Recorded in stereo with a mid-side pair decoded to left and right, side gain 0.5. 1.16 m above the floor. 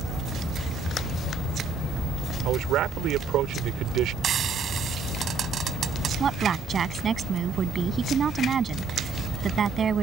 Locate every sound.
2.5 s a man speaking: 70° right
4.2 s frying: 50° right
6.2 s a woman speaking: 40° right